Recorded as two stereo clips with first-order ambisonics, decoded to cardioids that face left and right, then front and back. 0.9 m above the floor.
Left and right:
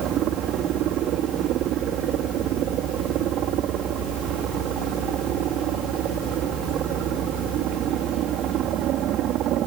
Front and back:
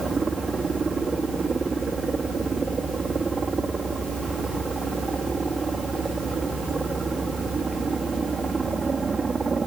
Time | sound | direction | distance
0.0 | a helicopter | 110° right | ?